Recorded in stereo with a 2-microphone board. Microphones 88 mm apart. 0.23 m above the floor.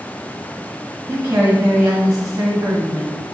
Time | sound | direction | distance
1.1 | a woman speaking | 30° right (ahead or behind) | 1.7 m